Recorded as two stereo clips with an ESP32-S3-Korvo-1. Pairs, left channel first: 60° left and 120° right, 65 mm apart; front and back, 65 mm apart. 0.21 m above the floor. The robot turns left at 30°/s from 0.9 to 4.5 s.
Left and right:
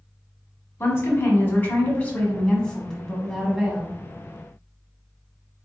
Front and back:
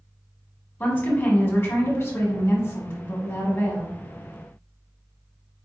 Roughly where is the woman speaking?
Ahead left.